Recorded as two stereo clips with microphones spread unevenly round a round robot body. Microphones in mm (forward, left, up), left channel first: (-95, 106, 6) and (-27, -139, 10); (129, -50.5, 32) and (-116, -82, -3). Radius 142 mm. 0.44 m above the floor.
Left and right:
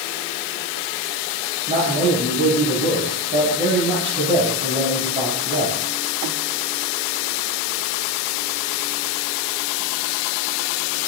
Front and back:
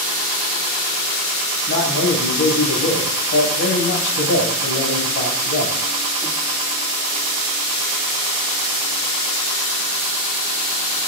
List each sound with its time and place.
1.7 s a man speaking: 5° right, 2 m